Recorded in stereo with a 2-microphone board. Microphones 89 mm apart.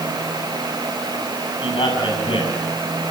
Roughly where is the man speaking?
Left.